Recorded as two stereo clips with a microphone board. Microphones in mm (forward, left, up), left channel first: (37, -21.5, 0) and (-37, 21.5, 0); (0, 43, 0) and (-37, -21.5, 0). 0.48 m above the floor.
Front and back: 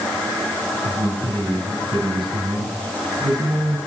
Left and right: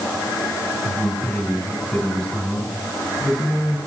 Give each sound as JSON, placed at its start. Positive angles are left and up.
{"t": 0.8, "sound": "a man speaking", "azimuth_deg": 150, "distance_m": 5.5}